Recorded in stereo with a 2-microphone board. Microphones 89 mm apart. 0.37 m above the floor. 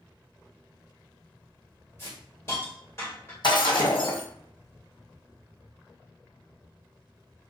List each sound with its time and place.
2.0 s a hiss: 30° left (ahead or behind), 1.3 m
3.4 s breaking glass: 60° left (ahead or behind), 1.3 m